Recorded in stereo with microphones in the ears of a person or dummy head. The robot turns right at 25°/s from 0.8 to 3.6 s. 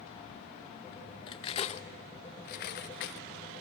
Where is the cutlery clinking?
25° left (ahead or behind), 0.7 m; by 3.2 s 60° left (ahead or behind), 0.7 m.